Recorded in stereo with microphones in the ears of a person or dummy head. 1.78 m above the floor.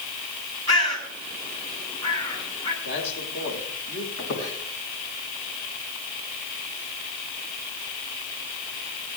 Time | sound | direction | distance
0.7 | a bird | 25° left (ahead or behind) | 9 m
2.8 | a man speaking | 60° left (ahead or behind) | 9.5 m
4.2 | a squeak | 55° left (ahead or behind) | 4 m